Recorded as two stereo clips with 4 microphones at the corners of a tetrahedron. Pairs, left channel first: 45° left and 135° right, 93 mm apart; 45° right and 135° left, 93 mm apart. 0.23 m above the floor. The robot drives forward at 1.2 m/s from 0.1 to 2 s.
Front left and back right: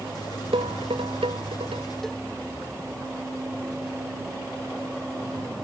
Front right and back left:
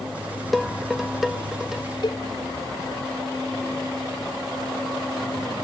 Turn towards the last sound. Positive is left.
turn(degrees=-40)